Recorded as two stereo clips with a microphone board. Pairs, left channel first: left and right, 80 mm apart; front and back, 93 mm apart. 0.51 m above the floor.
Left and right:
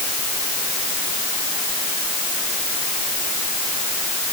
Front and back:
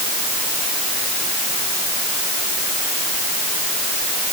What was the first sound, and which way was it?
Only background noise.